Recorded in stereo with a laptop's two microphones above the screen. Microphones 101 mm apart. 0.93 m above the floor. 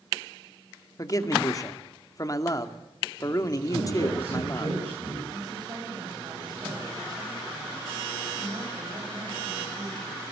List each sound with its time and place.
1.0 s a man speaking: 35° left (ahead or behind), 2.5 m
3.7 s a man speaking: 65° right (ahead or behind), 9.5 m
5.3 s a woman speaking: 45° right (ahead or behind), 6 m